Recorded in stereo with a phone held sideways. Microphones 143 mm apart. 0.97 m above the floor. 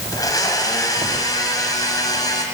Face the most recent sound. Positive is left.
turn(degrees=25)  # may be behind; listen again after turning